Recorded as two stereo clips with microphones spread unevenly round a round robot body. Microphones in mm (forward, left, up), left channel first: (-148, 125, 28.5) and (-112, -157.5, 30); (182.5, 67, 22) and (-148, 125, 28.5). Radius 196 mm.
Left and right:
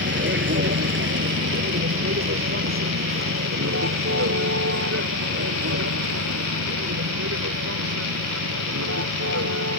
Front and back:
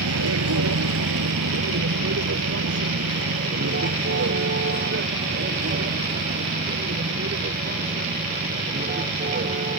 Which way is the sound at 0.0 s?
135° right.